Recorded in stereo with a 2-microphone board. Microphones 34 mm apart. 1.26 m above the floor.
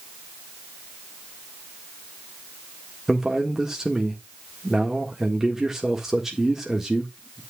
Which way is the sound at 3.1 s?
10° right (ahead or behind).